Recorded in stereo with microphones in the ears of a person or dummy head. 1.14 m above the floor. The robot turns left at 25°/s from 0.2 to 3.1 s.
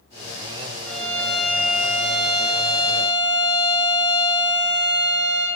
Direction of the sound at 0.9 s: 15° left.